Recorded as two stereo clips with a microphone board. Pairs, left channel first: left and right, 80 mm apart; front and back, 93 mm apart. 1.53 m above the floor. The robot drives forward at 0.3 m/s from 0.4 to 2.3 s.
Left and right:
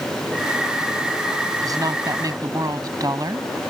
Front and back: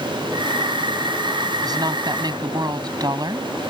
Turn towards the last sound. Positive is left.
turn(degrees=-135)